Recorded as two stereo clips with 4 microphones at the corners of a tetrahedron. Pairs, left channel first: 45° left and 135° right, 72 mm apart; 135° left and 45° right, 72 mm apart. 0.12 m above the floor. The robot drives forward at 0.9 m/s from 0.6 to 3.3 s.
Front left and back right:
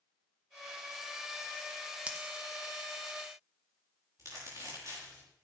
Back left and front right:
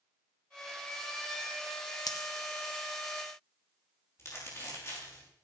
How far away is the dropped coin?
About 1.2 m.